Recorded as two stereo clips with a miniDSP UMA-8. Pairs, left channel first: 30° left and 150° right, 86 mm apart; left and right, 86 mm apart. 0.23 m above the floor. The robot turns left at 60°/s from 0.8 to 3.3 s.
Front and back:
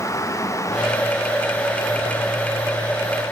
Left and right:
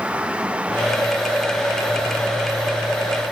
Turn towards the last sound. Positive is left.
No sound to turn to.